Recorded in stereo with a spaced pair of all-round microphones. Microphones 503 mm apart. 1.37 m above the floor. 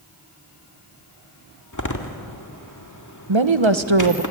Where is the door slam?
35° left (ahead or behind), 2.0 m.